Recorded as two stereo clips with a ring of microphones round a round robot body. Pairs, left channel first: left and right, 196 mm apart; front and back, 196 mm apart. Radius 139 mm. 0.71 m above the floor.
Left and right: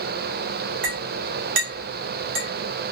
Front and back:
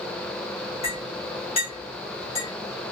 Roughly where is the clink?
Right.